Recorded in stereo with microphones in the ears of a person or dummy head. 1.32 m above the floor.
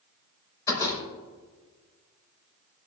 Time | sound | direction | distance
0.7 | a door slam | 20° left (ahead or behind) | 5.5 m